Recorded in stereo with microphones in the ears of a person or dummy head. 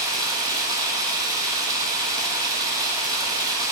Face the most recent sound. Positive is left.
turn(degrees=-20)  # may be behind; listen again after turning